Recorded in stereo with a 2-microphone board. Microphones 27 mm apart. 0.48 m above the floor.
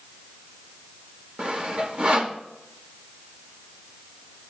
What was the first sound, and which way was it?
Sawing, 45° right (ahead or behind).